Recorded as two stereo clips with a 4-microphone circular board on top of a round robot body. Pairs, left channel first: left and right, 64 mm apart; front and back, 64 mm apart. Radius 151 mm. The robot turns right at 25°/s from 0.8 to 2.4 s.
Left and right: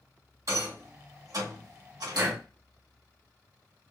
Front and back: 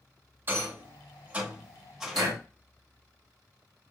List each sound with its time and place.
0.5 s a rattle: 125° right, 1.8 m; by 2.4 s 85° right, 1.8 m
2.1 s breathing: 155° right, 1.1 m; by 2.4 s 150° right, 1.1 m